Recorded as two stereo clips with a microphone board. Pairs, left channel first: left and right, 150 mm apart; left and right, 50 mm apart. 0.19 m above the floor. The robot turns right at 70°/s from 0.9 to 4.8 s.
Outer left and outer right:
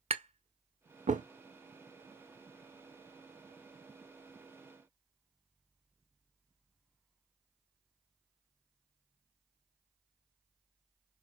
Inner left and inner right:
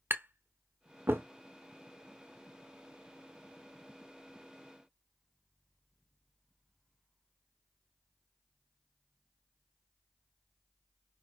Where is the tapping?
45° right (ahead or behind), 0.5 m; by 1.2 s 65° right (ahead or behind), 0.5 m.